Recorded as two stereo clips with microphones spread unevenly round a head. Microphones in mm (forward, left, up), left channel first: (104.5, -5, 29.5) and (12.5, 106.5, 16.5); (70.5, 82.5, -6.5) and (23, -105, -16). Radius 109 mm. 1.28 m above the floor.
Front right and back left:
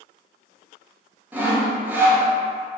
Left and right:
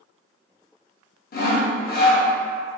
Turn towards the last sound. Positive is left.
turn(degrees=50)